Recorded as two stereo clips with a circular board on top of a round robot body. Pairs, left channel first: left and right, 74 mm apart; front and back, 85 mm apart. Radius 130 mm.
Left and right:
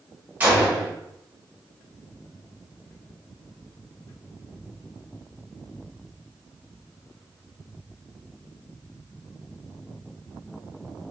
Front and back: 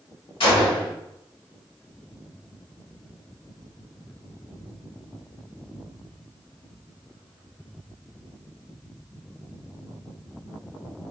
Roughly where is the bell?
No bell in this recording.